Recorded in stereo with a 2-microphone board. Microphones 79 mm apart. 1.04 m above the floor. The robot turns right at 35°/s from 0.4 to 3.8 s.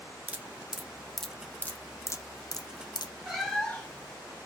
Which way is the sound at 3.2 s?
5° right (ahead or behind).